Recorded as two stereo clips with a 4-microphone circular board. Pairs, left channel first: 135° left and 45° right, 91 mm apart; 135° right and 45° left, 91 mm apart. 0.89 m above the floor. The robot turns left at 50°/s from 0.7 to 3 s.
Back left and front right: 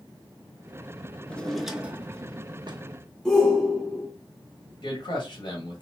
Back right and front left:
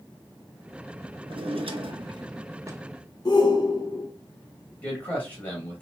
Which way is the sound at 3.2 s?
140° right.